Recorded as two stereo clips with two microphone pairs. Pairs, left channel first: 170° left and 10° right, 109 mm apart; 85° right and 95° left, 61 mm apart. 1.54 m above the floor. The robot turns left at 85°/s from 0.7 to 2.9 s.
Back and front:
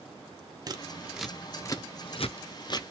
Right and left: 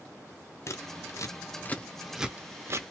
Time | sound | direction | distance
0.7 | scissors | 55° right | 0.5 m